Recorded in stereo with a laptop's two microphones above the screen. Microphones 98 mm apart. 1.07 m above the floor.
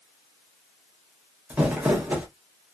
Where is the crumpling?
15° right (ahead or behind), 0.7 m.